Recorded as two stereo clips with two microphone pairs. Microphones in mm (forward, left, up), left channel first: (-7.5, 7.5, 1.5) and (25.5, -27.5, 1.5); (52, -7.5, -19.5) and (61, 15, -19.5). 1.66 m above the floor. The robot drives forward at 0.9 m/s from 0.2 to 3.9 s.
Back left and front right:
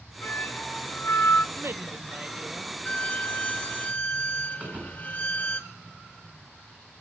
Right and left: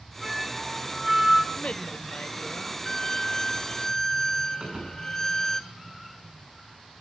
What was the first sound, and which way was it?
A flute, 140° left.